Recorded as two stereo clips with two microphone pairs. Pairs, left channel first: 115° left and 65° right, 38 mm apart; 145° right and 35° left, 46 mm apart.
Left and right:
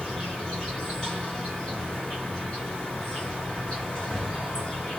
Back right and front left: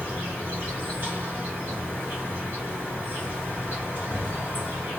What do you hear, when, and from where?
0.0 s an insect: 50° left, 2 m